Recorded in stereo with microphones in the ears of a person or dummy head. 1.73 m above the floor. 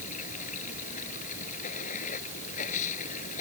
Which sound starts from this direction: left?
Running water, at 0.0 s.